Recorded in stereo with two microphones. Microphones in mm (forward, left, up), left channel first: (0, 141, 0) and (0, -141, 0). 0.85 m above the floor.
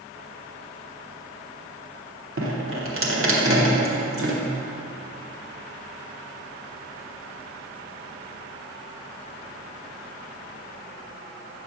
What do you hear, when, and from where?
2.4 s dripping: 45° right (ahead or behind), 1.2 m